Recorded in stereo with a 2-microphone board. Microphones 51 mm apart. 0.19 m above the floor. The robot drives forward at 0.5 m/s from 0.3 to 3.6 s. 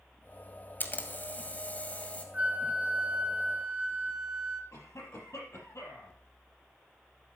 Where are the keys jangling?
I don't hear keys jangling.